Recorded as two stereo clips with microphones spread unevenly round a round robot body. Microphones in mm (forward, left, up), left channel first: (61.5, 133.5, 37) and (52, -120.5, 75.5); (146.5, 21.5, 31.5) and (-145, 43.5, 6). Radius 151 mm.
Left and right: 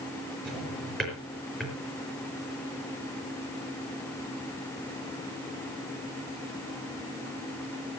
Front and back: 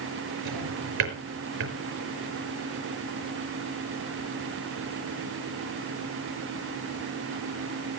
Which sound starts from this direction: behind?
A drawer, at 0.5 s.